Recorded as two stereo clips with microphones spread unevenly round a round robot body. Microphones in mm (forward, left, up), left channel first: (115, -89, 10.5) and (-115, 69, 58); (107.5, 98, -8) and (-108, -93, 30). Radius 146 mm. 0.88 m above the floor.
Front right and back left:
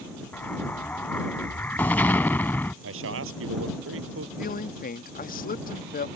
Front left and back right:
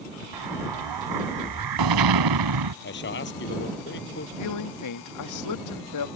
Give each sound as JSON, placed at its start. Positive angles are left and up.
{"t": 0.3, "sound": "an explosion", "azimuth_deg": -120}
{"t": 2.8, "sound": "a man speaking", "azimuth_deg": 95}
{"t": 4.4, "sound": "a man speaking", "azimuth_deg": 25}